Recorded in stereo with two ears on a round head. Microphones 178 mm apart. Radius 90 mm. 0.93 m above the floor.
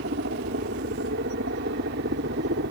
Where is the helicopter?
55° right (ahead or behind).